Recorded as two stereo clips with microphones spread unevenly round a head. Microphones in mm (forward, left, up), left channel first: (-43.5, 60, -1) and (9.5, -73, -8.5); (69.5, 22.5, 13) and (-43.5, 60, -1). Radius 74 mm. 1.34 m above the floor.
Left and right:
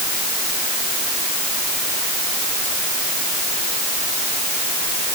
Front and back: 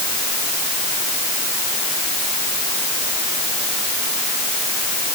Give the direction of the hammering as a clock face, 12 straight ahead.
I don't hear hammering.